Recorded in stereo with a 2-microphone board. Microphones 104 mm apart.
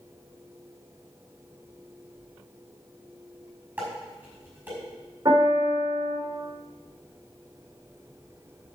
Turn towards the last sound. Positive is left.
turn(degrees=-40)  # may be behind; listen again after turning